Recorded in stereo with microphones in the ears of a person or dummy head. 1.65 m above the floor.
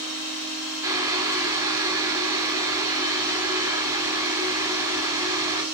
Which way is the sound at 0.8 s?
15° right (ahead or behind).